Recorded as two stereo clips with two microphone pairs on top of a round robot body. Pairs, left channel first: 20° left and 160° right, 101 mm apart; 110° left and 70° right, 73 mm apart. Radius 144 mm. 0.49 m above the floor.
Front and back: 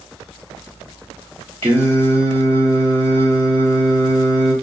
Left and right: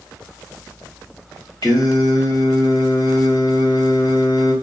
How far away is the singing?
About 1.5 m.